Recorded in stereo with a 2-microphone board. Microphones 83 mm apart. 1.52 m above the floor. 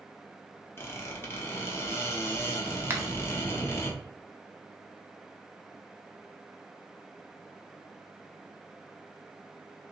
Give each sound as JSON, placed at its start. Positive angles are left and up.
{"t": 0.8, "sound": "a squeak", "side_deg": 30, "distance_m": 0.8}
{"t": 2.9, "sound": "a finger snap", "side_deg": -25, "distance_m": 0.7}